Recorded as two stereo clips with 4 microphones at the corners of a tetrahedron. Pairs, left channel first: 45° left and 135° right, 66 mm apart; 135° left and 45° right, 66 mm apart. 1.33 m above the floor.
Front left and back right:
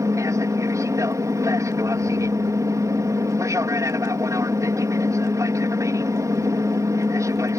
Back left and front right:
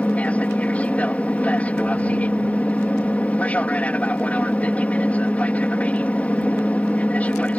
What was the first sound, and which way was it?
An aircraft, 160° right.